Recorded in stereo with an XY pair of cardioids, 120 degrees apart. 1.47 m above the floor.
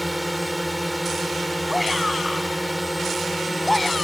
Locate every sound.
0.0 s a drone: 10° right
1.7 s a shout: straight ahead